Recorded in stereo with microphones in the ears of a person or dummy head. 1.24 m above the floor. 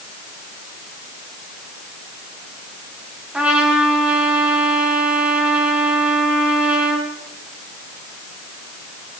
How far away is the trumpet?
About 5 m.